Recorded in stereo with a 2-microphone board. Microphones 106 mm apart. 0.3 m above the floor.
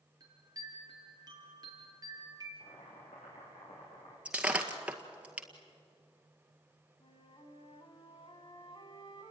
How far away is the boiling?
About 8 m.